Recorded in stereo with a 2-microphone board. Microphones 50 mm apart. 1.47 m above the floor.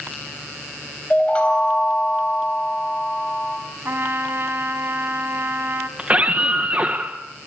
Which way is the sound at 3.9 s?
55° right (ahead or behind).